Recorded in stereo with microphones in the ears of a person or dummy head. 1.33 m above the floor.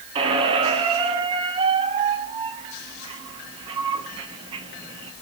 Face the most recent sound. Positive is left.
turn(degrees=-30)  # may be behind; listen again after turning